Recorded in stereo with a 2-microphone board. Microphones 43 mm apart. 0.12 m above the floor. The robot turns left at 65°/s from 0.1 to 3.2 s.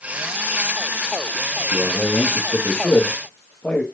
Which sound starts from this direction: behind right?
A man speaking, at 1.7 s.